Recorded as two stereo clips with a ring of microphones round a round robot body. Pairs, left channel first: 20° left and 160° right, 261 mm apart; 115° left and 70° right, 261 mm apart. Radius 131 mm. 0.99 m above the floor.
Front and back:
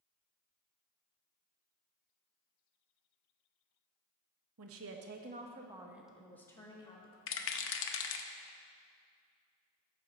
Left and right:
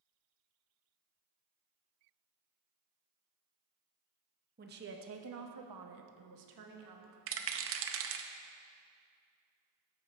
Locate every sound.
4.6 s a woman speaking: 125° right, 1.0 m; by 7.2 s 45° right, 1.5 m
7.3 s a rattle: 25° right, 0.6 m